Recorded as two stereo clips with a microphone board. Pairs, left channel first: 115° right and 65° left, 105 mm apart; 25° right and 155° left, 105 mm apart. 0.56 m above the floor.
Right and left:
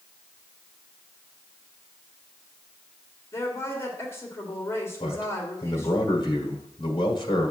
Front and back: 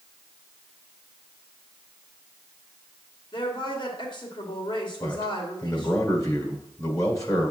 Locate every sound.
3.3 s a woman speaking: 50° right, 2.0 m
5.0 s a man speaking: 75° right, 1.5 m